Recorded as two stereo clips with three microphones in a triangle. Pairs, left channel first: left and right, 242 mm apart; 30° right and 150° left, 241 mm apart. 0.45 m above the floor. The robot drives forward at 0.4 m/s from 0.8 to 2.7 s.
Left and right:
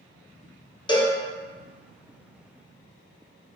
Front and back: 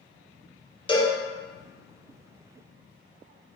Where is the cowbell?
25° left, 0.5 m; by 1.2 s 35° left, 0.5 m.